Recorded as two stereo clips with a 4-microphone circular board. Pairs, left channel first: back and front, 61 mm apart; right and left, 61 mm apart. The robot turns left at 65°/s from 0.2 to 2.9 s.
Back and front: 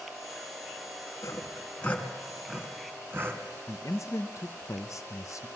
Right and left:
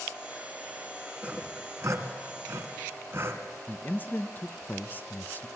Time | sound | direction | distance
1.2 | sawing | 155° left | 2 m
3.7 | a man speaking | 150° right | 0.7 m